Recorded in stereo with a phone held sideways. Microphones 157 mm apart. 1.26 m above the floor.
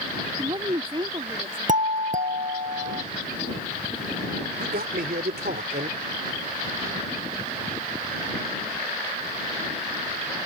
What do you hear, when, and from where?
0.4 s a woman speaking: 35° right (ahead or behind)
1.7 s a doorbell: 55° right (ahead or behind)
4.6 s a man speaking: 90° right